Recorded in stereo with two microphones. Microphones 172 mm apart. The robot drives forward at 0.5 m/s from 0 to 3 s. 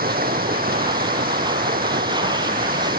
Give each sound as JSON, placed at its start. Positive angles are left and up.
{"t": 0.0, "sound": "running water", "side_deg": -65}